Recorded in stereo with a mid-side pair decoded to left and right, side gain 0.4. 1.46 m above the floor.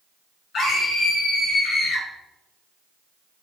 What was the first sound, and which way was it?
A scream, 70° left.